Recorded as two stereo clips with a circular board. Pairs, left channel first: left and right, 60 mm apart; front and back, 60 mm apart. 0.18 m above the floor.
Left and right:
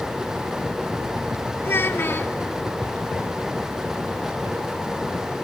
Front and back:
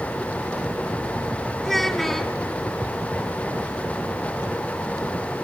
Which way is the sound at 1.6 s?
85° left.